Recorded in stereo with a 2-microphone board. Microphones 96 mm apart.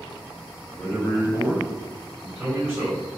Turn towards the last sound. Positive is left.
turn(degrees=-20)  # may be behind; listen again after turning